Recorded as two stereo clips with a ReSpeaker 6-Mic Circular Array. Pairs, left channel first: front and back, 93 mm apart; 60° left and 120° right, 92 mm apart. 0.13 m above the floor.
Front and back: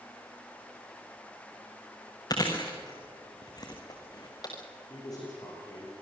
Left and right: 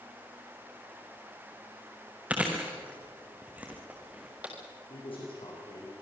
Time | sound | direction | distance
2.3 | chewing | 45° right | 3.5 m
4.9 | a man speaking | 45° left | 7.5 m